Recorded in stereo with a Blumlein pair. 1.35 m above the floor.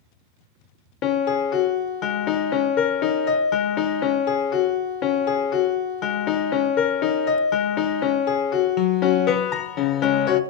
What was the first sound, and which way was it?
A piano, 35° left.